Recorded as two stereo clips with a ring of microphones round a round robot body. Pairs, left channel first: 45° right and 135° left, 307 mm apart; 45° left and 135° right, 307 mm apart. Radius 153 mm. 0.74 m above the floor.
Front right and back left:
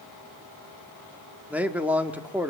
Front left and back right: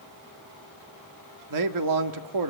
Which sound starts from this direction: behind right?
A man speaking, at 1.5 s.